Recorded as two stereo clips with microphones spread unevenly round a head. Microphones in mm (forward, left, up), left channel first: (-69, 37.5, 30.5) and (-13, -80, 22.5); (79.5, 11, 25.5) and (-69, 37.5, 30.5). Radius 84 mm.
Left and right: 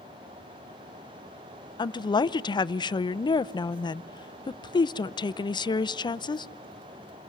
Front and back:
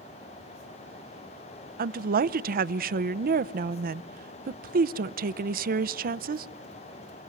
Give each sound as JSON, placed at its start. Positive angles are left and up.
{"t": 1.8, "sound": "a woman speaking", "azimuth_deg": 170, "distance_m": 0.6}